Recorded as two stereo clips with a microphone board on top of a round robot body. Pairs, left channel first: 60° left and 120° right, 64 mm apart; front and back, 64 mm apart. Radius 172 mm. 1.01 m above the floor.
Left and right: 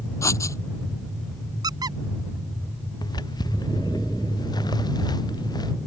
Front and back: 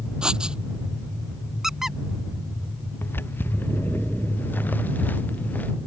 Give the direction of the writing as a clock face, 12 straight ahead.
9 o'clock.